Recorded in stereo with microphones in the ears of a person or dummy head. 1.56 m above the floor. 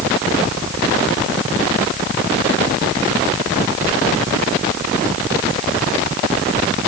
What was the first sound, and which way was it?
Only background noise.